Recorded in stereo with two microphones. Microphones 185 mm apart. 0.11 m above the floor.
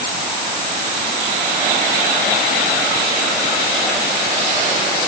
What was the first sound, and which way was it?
Only background noise.